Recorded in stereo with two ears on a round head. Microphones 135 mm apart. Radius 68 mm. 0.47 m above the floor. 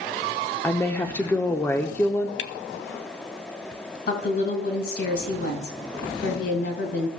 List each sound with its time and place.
0.6 s a woman speaking: 15° left (ahead or behind), 0.7 m
2.4 s a camera shutter: 75° left (ahead or behind), 0.8 m
4.1 s a woman speaking: 70° left (ahead or behind), 3.5 m